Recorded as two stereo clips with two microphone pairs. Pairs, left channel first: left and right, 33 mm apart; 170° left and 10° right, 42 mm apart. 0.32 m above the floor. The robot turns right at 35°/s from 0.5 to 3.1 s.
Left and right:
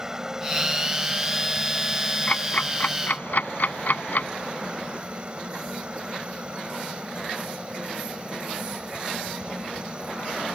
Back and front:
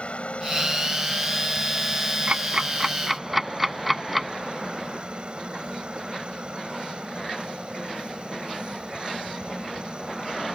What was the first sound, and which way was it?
A helicopter, 150° right.